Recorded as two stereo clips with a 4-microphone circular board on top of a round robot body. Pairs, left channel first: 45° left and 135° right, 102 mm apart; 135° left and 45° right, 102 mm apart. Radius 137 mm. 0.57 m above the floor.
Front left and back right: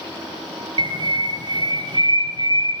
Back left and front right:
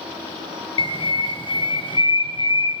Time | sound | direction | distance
0.8 | a bird | 175° left | 0.7 m